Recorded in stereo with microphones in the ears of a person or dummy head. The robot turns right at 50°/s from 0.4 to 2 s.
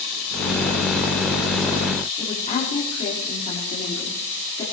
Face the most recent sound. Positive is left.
turn(degrees=30)  # may be behind; listen again after turning